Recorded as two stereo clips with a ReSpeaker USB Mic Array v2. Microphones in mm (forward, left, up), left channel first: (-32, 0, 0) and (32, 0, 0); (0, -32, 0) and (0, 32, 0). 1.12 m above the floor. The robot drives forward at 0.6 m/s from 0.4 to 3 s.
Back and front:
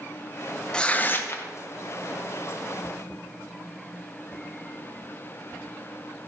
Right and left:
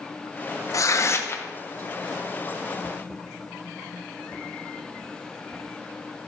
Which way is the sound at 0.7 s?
105° right.